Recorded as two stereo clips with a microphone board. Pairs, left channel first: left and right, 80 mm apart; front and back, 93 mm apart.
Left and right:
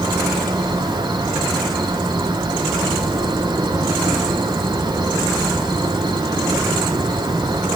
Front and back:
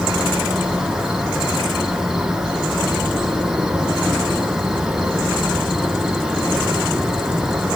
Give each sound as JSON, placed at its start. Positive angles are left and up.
{"t": 0.0, "sound": "an insect", "azimuth_deg": -95, "distance_m": 1.1}